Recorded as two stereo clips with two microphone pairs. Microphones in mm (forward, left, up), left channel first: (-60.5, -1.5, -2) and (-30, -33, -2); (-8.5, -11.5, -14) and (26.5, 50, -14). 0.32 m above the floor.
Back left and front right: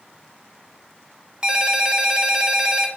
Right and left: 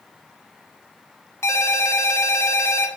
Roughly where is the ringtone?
Behind right.